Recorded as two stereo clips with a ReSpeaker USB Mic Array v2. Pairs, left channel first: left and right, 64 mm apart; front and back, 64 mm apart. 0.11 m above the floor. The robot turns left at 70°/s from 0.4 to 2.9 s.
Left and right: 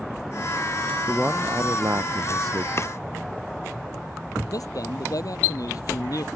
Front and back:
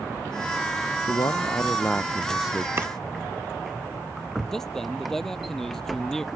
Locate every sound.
1.1 s a man speaking: 5° right; by 2.7 s 115° right
2.8 s chopping: 130° left; by 2.9 s 125° left
4.5 s a man speaking: 80° left